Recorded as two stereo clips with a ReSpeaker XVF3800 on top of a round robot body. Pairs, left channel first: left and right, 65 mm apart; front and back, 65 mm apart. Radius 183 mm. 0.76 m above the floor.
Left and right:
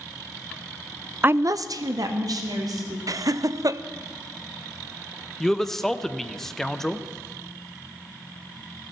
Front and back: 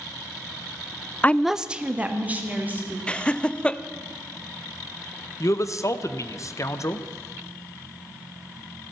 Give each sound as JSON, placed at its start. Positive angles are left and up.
{"t": 1.2, "sound": "a woman speaking", "azimuth_deg": -45, "distance_m": 0.5}
{"t": 3.1, "sound": "laughter", "azimuth_deg": -75, "distance_m": 0.7}
{"t": 5.4, "sound": "a man speaking", "azimuth_deg": 5, "distance_m": 1.0}